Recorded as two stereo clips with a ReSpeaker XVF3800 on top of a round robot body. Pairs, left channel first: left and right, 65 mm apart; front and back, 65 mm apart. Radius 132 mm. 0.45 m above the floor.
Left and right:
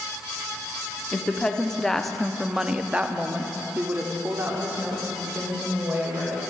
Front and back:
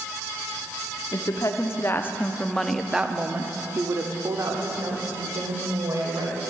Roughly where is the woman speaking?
Ahead.